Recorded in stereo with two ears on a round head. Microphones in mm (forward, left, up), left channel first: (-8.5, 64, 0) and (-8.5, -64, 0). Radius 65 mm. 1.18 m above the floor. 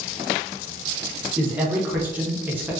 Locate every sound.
1.4 s a man speaking: 15° right (ahead or behind), 0.7 m